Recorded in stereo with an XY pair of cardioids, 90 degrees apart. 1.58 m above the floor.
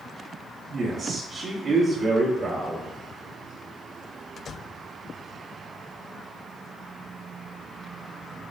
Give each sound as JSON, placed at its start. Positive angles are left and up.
{"t": 0.7, "sound": "a man speaking", "azimuth_deg": -60, "distance_m": 0.9}